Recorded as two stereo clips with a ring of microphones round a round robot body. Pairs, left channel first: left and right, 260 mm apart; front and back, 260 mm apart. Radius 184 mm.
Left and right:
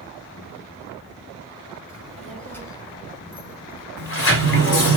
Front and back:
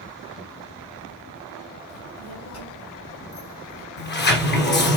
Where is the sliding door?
50° left, 1.6 m.